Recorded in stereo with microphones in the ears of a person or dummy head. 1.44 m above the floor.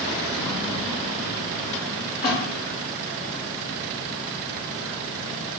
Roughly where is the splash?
Centre.